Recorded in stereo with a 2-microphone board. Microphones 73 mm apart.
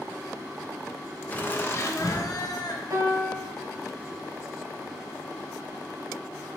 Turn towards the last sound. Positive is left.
turn(degrees=-60)  # may be behind; listen again after turning